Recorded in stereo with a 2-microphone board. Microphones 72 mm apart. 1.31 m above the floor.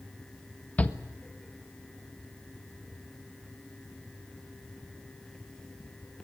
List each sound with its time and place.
0.8 s a shout: 20° left (ahead or behind), 1.4 m